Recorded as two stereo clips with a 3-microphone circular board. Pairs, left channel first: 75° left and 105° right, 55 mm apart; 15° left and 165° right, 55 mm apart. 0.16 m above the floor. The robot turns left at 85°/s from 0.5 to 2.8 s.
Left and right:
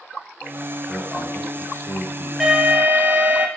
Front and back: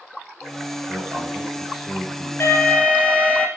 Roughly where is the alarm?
Ahead.